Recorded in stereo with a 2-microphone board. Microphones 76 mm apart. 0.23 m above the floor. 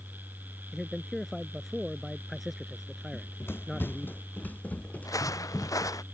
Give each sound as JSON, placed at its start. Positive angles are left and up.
{"t": 0.7, "sound": "a man speaking", "side_deg": 0}
{"t": 3.1, "sound": "running footsteps", "side_deg": 35}
{"t": 5.0, "sound": "footsteps", "side_deg": 50}